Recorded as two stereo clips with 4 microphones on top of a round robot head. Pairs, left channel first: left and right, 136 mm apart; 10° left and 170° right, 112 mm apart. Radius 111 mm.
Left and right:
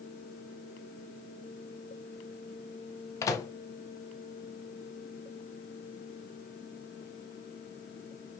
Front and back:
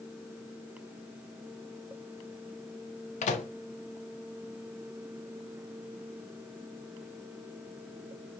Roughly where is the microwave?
Ahead.